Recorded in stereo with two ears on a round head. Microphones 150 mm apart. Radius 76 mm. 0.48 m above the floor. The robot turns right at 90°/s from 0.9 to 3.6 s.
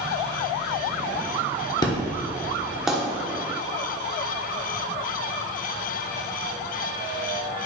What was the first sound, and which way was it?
An explosion, 25° left (ahead or behind).